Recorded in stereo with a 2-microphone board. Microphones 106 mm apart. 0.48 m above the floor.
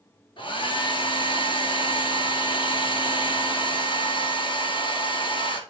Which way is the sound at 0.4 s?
55° left (ahead or behind).